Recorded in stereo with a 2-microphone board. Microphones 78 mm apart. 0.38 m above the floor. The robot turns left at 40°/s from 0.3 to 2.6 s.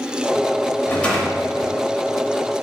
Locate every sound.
0.9 s a rattle: 30° left, 0.8 m; by 1.8 s 10° right, 0.8 m